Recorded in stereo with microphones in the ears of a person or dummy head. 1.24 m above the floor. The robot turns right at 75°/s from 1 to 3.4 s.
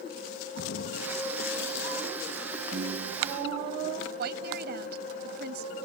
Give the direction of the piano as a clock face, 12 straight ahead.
5 o'clock.